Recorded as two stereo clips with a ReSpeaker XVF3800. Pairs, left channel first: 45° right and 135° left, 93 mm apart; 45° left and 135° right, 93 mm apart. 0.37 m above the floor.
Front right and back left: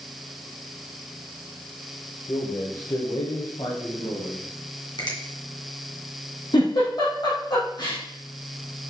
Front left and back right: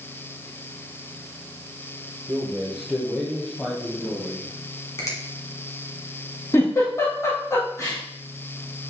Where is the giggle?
10° right, 4 m.